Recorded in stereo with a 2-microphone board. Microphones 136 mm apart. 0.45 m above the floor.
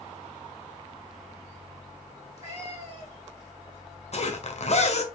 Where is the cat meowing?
50° left (ahead or behind), 4 m.